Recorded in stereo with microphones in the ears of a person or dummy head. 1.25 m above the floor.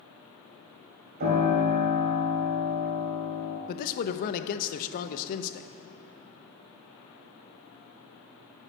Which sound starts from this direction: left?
A man speaking, at 3.7 s.